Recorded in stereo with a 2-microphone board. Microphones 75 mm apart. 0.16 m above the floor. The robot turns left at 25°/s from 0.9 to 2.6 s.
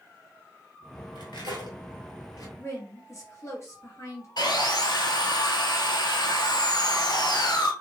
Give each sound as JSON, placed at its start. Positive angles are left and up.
{"t": 1.1, "sound": "cutlery clinking", "side_deg": 70, "distance_m": 1.8}
{"t": 2.6, "sound": "a woman speaking", "side_deg": 40, "distance_m": 2.5}
{"t": 4.4, "sound": "sawing", "side_deg": 70, "distance_m": 1.1}